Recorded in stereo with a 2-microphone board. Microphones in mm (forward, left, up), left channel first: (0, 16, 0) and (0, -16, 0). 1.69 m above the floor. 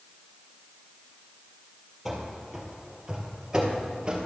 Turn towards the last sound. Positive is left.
turn(degrees=-30)  # may be behind; listen again after turning